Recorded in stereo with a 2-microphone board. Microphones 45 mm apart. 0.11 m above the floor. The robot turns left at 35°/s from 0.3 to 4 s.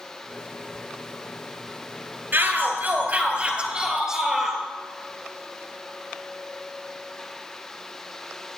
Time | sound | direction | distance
2.3 | a shout | 100° right | 2 m